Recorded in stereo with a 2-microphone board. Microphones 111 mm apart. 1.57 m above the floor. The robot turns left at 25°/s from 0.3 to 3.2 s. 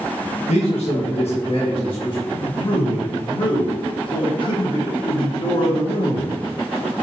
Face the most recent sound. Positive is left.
turn(degrees=50)  # may be behind; listen again after turning